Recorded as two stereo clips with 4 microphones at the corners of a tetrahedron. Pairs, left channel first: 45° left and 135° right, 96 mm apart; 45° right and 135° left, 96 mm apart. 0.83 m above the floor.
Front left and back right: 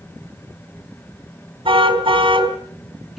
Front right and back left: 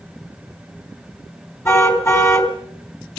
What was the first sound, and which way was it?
A car horn, 105° right.